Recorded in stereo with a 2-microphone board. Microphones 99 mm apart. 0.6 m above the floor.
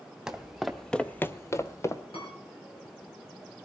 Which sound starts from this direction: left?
A piano, at 2.1 s.